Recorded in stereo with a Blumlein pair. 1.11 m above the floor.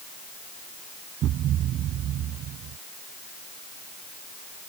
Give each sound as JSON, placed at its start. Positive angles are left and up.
{"t": 1.2, "sound": "a thud", "azimuth_deg": -30}